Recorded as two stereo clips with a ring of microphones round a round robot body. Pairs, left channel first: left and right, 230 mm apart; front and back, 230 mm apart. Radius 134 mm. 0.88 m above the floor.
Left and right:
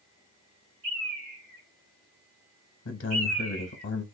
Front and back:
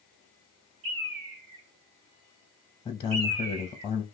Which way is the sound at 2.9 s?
65° left.